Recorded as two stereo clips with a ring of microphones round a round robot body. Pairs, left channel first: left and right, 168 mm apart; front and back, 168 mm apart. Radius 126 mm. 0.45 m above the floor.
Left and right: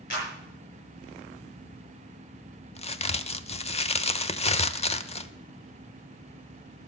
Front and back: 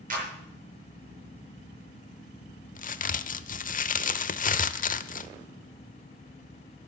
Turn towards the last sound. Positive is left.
turn(degrees=35)